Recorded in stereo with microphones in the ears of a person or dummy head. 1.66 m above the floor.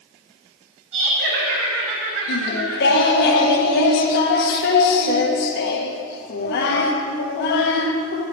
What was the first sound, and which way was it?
Laughter, 75° right (ahead or behind).